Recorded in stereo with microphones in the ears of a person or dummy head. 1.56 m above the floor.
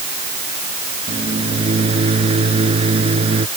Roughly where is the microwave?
Right.